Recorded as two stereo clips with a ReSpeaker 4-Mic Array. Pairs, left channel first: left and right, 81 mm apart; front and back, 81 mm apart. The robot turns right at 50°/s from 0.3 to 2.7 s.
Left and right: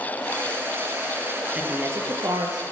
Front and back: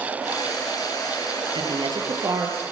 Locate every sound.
1.6 s a woman speaking: 170° right, 9 m; by 2.6 s 115° right, 9 m